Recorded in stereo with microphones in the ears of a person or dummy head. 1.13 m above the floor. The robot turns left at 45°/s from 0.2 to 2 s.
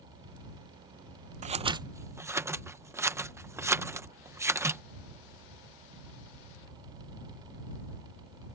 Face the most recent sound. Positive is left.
turn(degrees=-15)  # may be behind; listen again after turning